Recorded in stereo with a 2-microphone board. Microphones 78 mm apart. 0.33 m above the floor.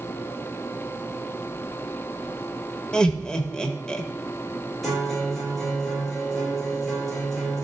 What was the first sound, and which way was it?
Laughter, 10° left (ahead or behind).